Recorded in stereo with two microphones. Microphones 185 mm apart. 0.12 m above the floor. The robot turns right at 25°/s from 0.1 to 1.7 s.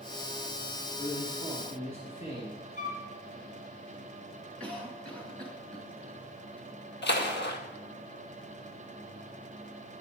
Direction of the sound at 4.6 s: 5° left (ahead or behind).